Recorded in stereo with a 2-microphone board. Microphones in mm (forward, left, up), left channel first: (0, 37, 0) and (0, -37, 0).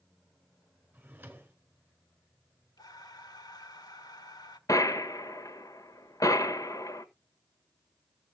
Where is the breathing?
65° left (ahead or behind), 1.4 m.